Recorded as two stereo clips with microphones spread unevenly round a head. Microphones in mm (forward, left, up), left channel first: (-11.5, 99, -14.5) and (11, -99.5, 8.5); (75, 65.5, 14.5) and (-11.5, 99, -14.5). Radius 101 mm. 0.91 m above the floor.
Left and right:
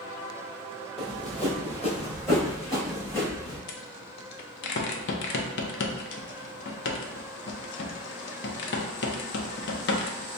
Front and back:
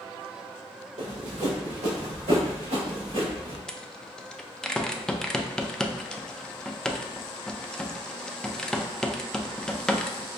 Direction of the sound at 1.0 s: 170° right.